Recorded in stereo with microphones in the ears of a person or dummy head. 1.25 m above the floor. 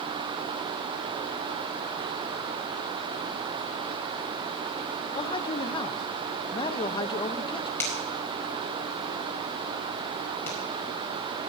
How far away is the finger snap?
About 5 m.